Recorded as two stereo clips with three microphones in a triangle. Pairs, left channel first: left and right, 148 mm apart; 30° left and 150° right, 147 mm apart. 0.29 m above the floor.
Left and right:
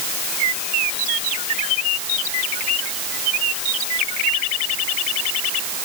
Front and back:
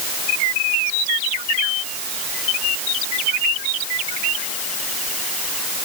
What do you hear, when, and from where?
Only background noise.